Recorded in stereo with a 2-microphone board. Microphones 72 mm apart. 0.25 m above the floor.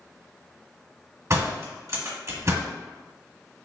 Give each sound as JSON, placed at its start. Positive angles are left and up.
{"t": 1.3, "sound": "a door slam", "side_deg": -45, "distance_m": 1.3}